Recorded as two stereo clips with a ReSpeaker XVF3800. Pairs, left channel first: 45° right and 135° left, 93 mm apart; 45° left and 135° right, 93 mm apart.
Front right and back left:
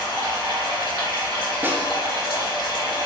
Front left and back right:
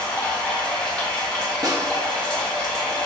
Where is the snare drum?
165° right, 0.6 m.